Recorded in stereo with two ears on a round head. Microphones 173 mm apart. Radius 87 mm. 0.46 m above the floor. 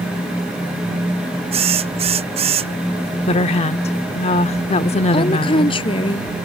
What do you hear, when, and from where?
1.5 s a drill: 30° right (ahead or behind)
3.3 s a woman speaking: 35° left (ahead or behind)
5.1 s a woman speaking: 30° left (ahead or behind)